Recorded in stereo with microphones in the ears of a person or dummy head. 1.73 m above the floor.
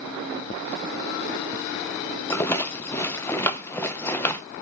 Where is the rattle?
20° left (ahead or behind), 0.6 m.